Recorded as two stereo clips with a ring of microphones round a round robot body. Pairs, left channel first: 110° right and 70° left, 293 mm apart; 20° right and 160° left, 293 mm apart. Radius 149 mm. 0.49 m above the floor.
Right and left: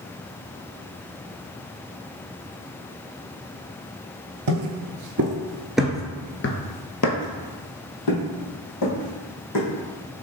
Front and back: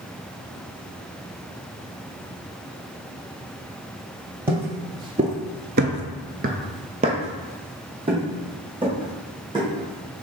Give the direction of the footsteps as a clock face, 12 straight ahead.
9 o'clock.